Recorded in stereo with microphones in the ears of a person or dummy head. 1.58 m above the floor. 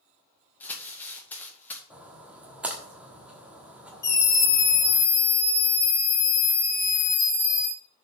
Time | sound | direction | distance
0.6 | crumpling | 10° left (ahead or behind) | 1.9 m
1.9 | a splash | 5° right (ahead or behind) | 1.5 m
4.0 | a scream | 15° left (ahead or behind) | 1.6 m